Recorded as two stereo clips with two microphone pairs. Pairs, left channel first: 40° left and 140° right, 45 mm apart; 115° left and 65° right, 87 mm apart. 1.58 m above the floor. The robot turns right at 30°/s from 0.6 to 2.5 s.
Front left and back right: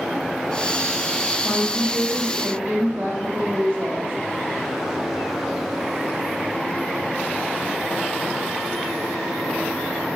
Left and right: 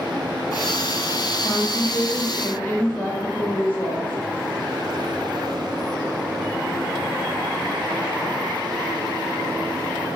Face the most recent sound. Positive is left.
turn(degrees=-175)